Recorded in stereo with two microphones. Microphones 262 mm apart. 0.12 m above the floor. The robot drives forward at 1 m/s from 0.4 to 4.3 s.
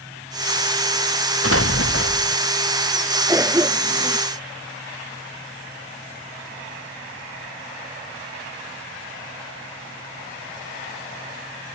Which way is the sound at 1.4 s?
60° left (ahead or behind).